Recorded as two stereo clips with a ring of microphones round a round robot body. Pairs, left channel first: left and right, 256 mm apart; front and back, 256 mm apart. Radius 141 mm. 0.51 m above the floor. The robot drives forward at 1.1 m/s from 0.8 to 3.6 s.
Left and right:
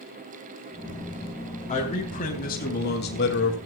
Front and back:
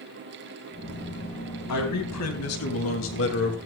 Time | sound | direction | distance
1.7 | a man speaking | 25° left | 4 m